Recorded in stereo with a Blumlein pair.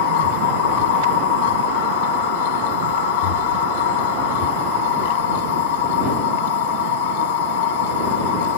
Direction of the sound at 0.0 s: 50° left.